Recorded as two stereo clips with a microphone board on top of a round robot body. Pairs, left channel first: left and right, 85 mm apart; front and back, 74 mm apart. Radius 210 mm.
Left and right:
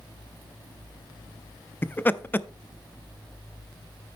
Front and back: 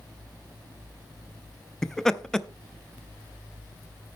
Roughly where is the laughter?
Left.